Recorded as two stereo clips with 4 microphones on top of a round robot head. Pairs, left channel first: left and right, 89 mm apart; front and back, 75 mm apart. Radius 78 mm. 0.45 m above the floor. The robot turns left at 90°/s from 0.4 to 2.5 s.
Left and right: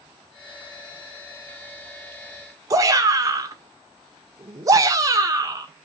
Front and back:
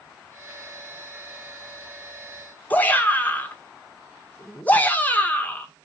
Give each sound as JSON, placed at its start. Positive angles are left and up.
{"t": 2.7, "sound": "a shout", "azimuth_deg": -60, "distance_m": 1.6}